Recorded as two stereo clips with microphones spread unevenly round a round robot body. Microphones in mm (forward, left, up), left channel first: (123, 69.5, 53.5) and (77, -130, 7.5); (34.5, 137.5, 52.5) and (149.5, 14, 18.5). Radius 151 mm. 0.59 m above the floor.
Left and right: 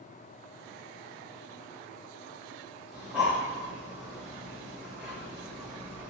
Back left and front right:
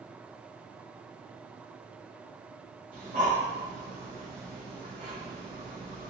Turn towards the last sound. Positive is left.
turn(degrees=-20)